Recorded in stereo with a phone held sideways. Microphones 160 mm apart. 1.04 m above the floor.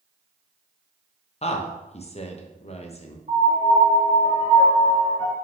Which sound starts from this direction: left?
A woman speaking, at 1.4 s.